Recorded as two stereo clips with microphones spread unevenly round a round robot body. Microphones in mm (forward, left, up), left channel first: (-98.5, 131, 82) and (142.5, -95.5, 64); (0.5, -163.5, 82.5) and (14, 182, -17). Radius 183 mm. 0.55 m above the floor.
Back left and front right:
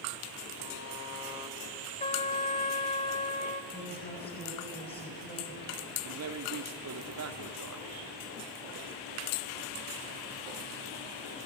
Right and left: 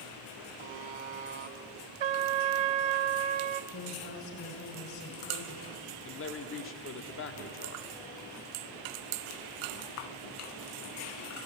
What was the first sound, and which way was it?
A buzzer, 85° left.